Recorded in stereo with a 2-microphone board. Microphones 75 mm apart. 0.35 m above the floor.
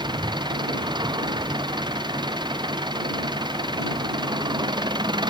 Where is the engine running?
90° right.